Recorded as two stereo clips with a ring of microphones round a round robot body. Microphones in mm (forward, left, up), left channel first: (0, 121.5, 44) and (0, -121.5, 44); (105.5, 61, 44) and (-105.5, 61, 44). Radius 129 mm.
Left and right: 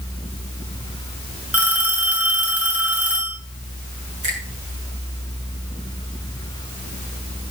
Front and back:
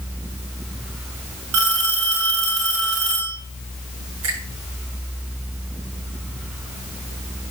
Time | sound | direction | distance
1.5 | a phone ringing | 175° right | 7 m
4.2 | a finger snap | 155° right | 7.5 m